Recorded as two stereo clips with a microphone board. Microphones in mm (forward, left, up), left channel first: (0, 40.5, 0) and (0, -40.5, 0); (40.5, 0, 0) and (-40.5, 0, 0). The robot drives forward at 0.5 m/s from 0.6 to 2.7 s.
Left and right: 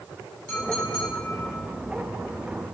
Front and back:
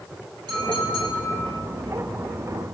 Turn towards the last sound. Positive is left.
turn(degrees=170)